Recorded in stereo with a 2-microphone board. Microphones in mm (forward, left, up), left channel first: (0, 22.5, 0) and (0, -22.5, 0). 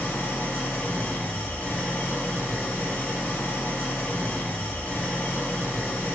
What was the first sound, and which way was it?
An engine running, 45° left (ahead or behind).